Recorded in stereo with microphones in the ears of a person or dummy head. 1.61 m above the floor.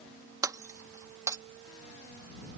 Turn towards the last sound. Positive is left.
turn(degrees=-15)  # may be behind; listen again after turning